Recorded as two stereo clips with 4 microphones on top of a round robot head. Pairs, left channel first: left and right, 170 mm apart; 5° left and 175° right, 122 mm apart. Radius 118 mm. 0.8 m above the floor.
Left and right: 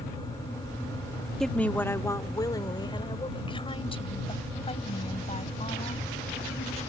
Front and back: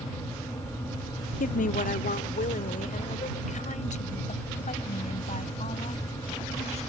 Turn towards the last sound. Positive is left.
turn(degrees=40)